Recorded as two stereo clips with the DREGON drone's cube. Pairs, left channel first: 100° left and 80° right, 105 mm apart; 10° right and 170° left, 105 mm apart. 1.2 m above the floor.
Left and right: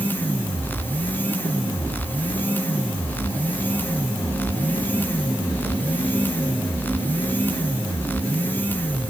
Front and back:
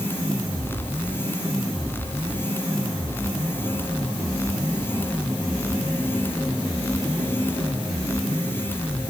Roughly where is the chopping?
No chopping in this recording.